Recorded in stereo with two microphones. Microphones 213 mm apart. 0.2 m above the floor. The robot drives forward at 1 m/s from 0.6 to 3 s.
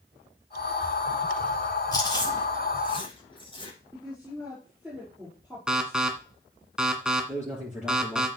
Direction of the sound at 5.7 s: 5° right (ahead or behind).